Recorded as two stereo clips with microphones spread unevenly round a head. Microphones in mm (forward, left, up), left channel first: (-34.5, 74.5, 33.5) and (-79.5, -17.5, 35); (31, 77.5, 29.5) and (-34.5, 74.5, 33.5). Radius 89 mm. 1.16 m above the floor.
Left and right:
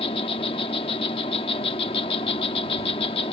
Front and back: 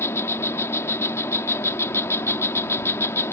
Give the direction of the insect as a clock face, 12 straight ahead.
11 o'clock.